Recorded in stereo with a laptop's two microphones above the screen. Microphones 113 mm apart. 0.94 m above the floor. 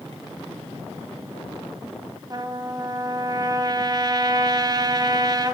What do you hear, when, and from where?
2.3 s a trumpet: 35° right (ahead or behind), 1.0 m